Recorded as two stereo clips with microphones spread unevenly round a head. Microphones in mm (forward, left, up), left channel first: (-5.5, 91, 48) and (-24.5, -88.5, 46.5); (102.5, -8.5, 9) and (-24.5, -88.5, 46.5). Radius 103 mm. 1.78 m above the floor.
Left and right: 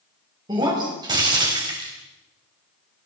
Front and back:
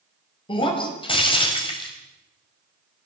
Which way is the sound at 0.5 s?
30° right.